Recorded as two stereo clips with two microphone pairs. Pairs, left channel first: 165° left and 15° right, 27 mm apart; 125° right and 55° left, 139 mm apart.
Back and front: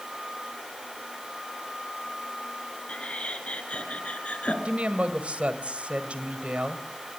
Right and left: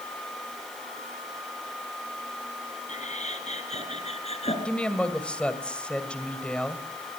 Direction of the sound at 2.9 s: 155° right.